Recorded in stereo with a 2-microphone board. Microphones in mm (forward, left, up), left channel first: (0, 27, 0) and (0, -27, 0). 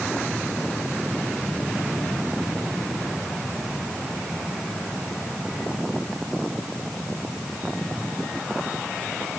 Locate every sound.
Only background noise.